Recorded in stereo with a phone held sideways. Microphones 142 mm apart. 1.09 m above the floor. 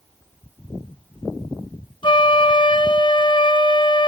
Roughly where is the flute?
Left.